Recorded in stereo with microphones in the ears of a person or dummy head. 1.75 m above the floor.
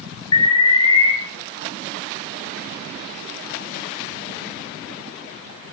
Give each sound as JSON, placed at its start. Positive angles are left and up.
{"t": 0.3, "sound": "an alarm", "side_deg": 20, "distance_m": 1.0}